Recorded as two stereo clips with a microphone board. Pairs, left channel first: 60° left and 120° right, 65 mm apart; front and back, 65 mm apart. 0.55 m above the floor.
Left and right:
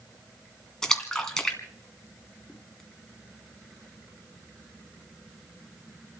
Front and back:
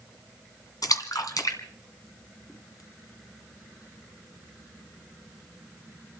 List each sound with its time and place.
0.8 s a splash: 20° right, 2 m